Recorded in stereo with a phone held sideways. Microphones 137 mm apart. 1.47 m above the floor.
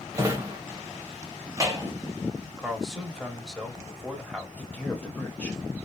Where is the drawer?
20° right (ahead or behind), 0.8 m.